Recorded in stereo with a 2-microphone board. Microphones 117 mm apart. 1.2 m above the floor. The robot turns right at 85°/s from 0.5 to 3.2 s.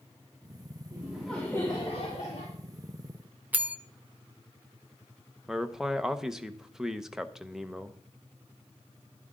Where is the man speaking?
5° right (ahead or behind), 0.9 m.